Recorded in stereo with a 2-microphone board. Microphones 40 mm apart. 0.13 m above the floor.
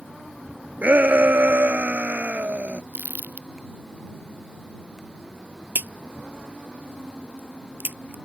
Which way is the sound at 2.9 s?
50° right (ahead or behind).